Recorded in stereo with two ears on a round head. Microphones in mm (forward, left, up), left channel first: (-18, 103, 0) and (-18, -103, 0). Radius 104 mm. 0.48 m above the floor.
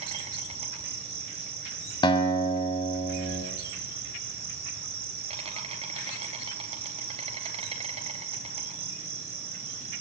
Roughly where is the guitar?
Left.